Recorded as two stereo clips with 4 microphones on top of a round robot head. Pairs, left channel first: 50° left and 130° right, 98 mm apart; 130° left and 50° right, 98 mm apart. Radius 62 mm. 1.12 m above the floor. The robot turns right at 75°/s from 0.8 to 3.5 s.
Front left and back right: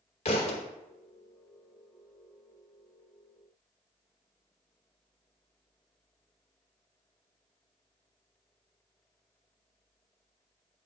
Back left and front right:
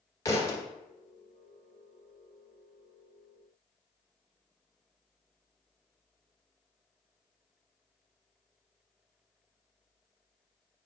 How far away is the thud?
About 1.2 m.